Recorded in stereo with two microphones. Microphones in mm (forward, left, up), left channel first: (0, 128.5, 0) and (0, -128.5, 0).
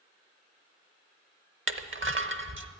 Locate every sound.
1.7 s crushing: 50° right (ahead or behind), 0.7 m